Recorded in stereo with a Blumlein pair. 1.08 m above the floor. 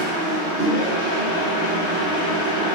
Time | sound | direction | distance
0.0 | a machine running | 50° left | 1.1 m